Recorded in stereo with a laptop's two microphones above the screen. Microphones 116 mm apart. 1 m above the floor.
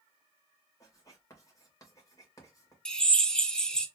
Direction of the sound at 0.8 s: 30° left (ahead or behind).